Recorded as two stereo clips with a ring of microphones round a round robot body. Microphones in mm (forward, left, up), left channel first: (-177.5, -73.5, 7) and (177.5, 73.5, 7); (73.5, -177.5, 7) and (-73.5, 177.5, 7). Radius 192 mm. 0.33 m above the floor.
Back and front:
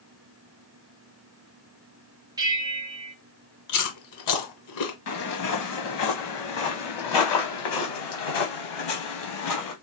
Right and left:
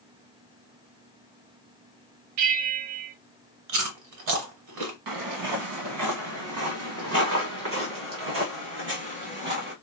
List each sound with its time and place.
2.4 s a bell: 100° left, 0.7 m
3.7 s chewing: 160° left, 1.5 m
5.1 s footsteps: 150° left, 1.6 m; by 9.7 s 175° left, 3.5 m